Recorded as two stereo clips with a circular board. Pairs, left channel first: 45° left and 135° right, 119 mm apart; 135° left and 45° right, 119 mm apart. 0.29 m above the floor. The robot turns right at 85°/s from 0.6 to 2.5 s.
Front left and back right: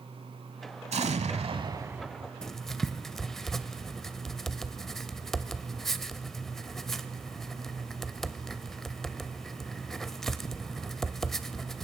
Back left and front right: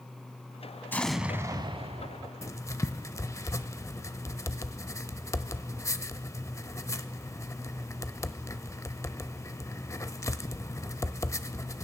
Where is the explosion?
155° right, 0.7 m; by 2.3 s 35° right, 0.7 m.